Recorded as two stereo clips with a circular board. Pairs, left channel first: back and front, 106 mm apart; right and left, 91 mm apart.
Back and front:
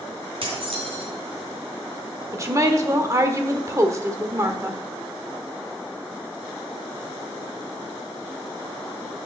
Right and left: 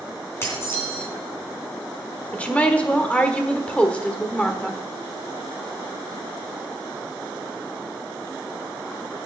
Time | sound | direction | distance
0.4 | dishes clattering | 30° right | 3 m
2.3 | a woman speaking | 25° right | 1.2 m